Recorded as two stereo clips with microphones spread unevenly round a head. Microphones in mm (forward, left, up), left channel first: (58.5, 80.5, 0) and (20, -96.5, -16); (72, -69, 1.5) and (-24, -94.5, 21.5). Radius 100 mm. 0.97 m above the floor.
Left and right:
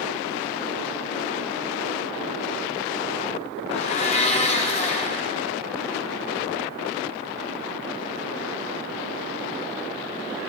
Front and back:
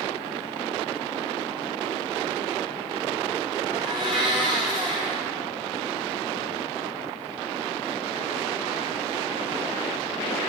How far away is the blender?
About 0.8 m.